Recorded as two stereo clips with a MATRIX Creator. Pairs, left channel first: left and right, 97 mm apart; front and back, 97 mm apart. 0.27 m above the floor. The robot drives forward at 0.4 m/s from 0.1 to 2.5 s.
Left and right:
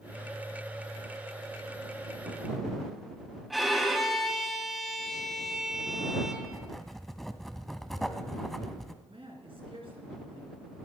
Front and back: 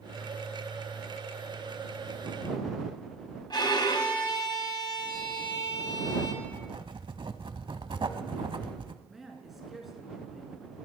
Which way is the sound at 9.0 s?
90° right.